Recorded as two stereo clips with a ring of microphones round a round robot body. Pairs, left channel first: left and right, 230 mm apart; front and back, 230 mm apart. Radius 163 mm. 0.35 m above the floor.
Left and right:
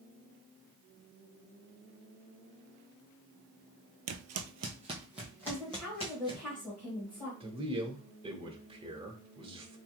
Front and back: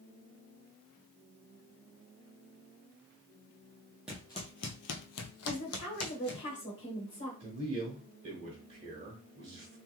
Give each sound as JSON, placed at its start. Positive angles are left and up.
{"t": 4.1, "sound": "footsteps", "azimuth_deg": -95, "distance_m": 0.7}
{"t": 5.5, "sound": "a woman speaking", "azimuth_deg": 10, "distance_m": 1.4}
{"t": 7.4, "sound": "a man speaking", "azimuth_deg": -140, "distance_m": 1.0}